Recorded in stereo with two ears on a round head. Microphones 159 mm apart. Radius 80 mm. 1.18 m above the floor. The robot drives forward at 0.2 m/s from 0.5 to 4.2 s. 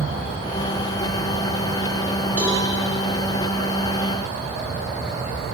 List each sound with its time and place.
2.4 s a cowbell: 10° right (ahead or behind), 3 m